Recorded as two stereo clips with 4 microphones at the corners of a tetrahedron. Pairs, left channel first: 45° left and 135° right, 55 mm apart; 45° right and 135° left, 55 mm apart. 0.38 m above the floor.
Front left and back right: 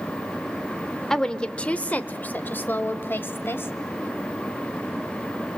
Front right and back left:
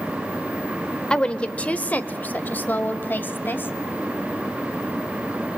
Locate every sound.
1.1 s a woman speaking: 10° right, 0.9 m; by 3.7 s straight ahead, 1.9 m